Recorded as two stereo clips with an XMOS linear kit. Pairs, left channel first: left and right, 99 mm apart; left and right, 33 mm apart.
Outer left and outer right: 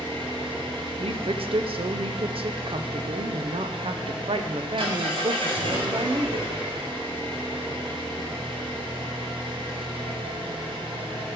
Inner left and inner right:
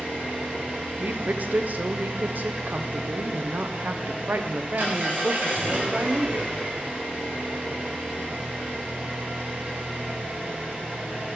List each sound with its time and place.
0.0 s an engine running: 60° right (ahead or behind), 4 m
1.0 s a woman speaking: 70° right (ahead or behind), 0.8 m